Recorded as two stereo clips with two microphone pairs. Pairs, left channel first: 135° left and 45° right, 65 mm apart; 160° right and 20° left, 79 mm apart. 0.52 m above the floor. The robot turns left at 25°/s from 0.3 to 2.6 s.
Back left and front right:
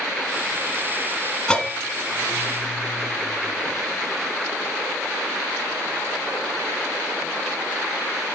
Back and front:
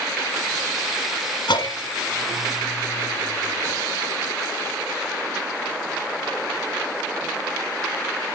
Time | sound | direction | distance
1.5 | a bell | 150° right | 1.1 m